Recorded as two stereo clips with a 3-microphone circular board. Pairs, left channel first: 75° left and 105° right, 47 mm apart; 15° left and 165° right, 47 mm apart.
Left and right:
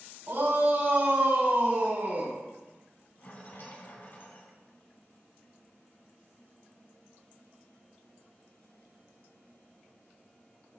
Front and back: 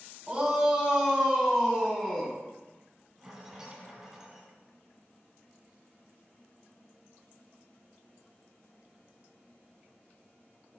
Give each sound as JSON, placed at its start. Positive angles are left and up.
{"t": 0.3, "sound": "a shout", "azimuth_deg": -100, "distance_m": 2.5}
{"t": 3.2, "sound": "a rattle", "azimuth_deg": 115, "distance_m": 2.5}